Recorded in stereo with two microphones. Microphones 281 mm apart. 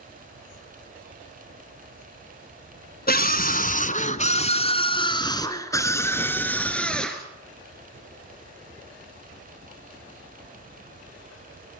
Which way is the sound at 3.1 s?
30° left (ahead or behind).